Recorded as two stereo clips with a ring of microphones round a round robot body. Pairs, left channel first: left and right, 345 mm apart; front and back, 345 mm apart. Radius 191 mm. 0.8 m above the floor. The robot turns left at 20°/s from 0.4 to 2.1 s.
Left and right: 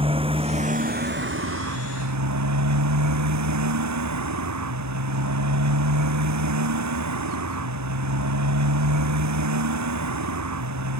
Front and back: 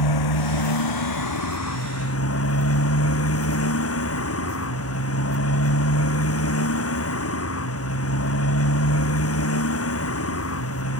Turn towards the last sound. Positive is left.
turn(degrees=-50)